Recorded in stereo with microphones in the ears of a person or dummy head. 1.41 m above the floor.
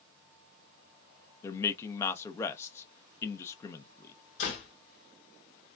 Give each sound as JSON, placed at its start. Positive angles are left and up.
{"t": 1.4, "sound": "a man speaking", "side_deg": 15, "distance_m": 0.8}
{"t": 4.4, "sound": "a door slam", "side_deg": 40, "distance_m": 1.8}